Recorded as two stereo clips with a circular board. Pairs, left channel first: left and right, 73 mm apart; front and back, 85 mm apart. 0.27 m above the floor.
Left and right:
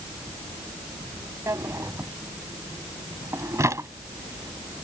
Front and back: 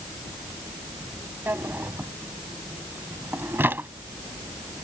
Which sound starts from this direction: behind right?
A drawer, at 1.5 s.